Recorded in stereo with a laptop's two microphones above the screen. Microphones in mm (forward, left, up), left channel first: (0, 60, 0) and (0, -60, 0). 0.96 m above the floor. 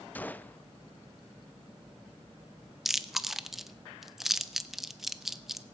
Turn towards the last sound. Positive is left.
turn(degrees=-5)  # may be behind; listen again after turning